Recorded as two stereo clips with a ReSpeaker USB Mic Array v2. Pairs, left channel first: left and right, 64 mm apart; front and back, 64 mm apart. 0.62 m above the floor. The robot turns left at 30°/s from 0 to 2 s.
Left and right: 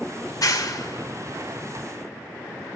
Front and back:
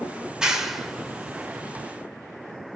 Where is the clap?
105° left, 1.6 m; by 1.9 s 60° left, 1.6 m.